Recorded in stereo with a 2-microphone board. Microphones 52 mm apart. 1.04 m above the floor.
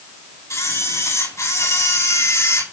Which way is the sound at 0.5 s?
75° left (ahead or behind).